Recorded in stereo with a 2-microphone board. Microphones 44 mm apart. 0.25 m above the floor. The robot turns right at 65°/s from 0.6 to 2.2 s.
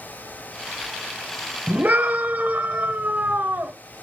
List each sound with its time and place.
1.7 s a scream: 100° right, 1.1 m; by 3.7 s 65° right, 1.1 m